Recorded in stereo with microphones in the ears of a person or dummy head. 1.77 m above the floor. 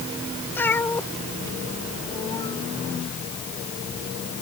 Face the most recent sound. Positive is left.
turn(degrees=25)  # may be behind; listen again after turning